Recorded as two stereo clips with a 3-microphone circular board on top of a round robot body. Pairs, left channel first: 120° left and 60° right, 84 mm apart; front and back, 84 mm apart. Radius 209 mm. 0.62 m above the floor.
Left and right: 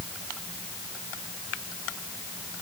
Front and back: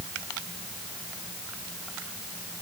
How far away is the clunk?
No clunk in this recording.